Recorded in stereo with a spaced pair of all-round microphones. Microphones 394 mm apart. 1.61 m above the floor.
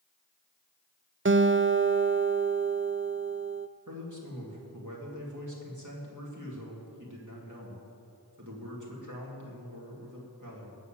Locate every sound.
1.2 s a guitar: 30° right (ahead or behind), 0.5 m
3.9 s a man speaking: 50° right (ahead or behind), 3.5 m